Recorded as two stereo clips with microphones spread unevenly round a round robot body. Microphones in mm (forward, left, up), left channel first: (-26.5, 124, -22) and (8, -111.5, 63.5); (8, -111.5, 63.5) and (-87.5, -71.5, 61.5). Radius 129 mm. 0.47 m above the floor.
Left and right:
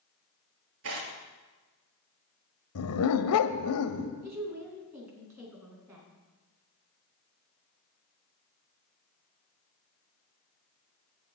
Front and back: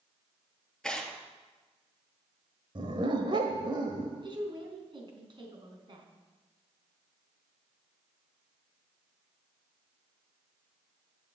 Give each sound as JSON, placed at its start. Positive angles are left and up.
{"t": 0.8, "sound": "tearing paper", "azimuth_deg": -105, "distance_m": 2.5}
{"t": 2.8, "sound": "a dog barking", "azimuth_deg": 105, "distance_m": 0.9}
{"t": 4.2, "sound": "a woman speaking", "azimuth_deg": -165, "distance_m": 4.5}